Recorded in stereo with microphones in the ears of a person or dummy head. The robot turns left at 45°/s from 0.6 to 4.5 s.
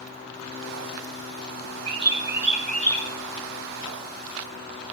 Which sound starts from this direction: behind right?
A bird, at 1.9 s.